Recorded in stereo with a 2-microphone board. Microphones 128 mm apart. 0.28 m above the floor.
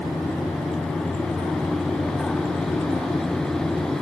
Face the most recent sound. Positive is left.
No sound to turn to.